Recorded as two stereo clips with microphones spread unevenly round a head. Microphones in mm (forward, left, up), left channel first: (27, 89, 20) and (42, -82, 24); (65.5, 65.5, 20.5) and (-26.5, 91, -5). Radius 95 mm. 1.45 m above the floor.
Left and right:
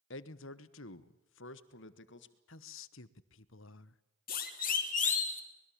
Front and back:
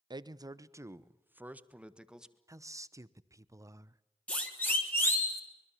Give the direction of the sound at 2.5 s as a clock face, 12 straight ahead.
8 o'clock.